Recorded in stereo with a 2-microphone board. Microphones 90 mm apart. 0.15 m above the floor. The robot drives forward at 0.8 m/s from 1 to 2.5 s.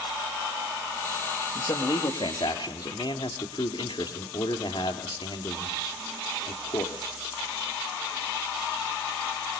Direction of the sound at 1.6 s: 60° left (ahead or behind).